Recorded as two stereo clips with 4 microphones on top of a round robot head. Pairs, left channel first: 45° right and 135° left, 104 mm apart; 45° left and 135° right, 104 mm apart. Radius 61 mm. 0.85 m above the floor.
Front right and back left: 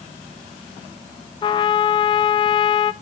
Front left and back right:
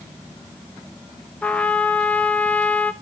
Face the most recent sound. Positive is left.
turn(degrees=-30)